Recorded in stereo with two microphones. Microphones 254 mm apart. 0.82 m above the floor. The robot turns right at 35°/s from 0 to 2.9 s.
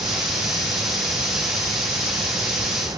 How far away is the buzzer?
I don't hear a buzzer.